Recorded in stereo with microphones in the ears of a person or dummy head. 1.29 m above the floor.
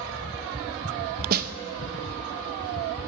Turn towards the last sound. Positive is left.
turn(degrees=-50)  # may be behind; listen again after turning